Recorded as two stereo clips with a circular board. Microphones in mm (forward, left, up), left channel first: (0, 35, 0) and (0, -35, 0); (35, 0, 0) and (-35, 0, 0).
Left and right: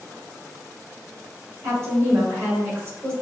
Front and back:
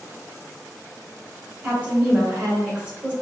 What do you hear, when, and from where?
1.6 s a woman speaking: 120° right, 1.8 m